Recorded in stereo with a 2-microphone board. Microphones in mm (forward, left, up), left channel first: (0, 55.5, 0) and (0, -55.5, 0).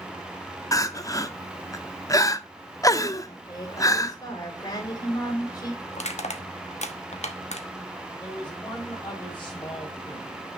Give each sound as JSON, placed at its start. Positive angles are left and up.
{"t": 0.7, "sound": "crying", "side_deg": 30, "distance_m": 0.6}
{"t": 3.2, "sound": "a woman speaking", "side_deg": 30, "distance_m": 4.5}
{"t": 5.9, "sound": "crushing", "side_deg": 70, "distance_m": 1.1}
{"t": 8.2, "sound": "a man speaking", "side_deg": 20, "distance_m": 4.0}